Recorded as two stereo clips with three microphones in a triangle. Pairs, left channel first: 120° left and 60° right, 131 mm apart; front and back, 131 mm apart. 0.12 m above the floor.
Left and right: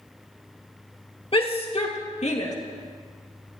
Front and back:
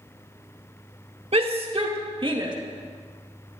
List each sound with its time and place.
1.3 s a shout: 155° left, 2.5 m; by 2.5 s 130° left, 2.5 m